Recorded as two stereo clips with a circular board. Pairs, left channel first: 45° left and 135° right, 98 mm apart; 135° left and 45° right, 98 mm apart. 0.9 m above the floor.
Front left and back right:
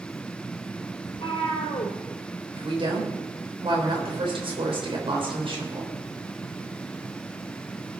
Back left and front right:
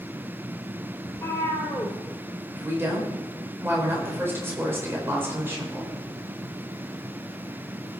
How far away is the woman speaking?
About 4 m.